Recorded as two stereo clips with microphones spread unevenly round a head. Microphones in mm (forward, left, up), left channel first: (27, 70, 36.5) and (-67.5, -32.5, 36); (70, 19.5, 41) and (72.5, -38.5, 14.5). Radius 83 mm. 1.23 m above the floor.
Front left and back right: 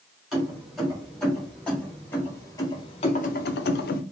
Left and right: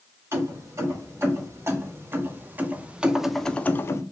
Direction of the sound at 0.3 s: 45° right.